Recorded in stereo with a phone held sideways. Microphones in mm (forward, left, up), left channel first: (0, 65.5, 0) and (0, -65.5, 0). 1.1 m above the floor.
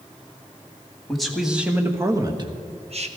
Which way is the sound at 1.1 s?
5° left (ahead or behind).